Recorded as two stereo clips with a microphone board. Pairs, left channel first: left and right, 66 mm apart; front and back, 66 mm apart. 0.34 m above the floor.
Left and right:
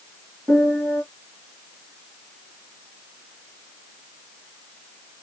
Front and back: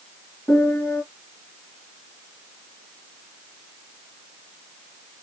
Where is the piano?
30° right, 1.9 m.